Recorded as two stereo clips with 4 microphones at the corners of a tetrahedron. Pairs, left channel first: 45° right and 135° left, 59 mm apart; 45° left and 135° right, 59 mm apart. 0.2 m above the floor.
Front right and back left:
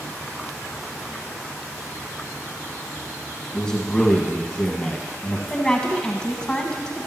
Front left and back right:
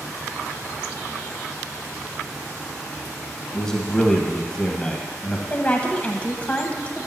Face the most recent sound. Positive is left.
turn(degrees=10)